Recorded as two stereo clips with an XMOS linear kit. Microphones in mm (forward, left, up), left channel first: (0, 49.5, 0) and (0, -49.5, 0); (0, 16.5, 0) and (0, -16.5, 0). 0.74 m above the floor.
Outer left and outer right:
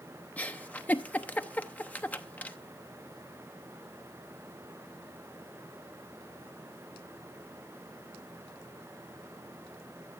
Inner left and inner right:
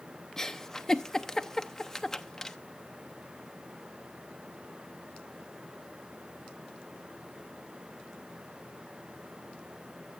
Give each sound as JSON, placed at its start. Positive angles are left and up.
{"t": 0.4, "sound": "a giggle", "side_deg": 15, "distance_m": 0.8}